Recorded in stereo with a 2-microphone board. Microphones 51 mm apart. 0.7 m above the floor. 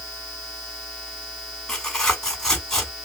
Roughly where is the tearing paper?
Centre.